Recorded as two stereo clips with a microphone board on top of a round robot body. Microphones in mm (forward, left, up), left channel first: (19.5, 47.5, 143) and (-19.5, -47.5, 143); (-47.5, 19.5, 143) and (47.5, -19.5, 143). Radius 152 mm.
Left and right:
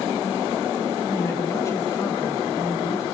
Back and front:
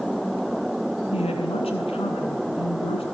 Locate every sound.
1.1 s a woman speaking: 130° left, 8 m